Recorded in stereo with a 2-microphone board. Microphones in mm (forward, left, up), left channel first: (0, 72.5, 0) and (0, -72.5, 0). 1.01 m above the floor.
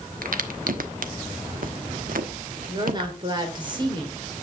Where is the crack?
75° right (ahead or behind), 1.1 m.